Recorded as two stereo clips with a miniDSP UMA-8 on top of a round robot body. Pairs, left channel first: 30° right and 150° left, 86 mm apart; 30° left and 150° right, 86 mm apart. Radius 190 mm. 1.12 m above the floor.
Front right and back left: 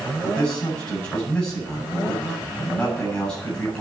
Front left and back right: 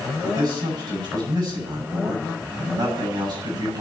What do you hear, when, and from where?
0.2 s a man speaking: 110° right, 9 m